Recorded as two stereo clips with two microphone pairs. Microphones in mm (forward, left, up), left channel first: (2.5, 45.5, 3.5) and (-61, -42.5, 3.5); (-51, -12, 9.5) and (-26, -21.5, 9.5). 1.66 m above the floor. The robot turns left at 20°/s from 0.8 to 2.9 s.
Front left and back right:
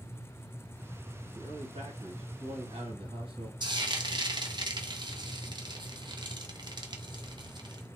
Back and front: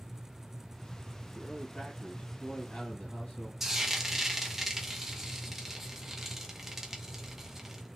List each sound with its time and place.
1.4 s a man speaking: 130° right, 1.5 m; by 3.5 s 165° right, 1.5 m
3.6 s frying: 105° right, 0.6 m